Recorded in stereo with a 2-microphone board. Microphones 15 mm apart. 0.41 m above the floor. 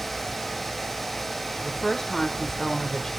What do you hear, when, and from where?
1.6 s a woman speaking: 35° left (ahead or behind), 1.1 m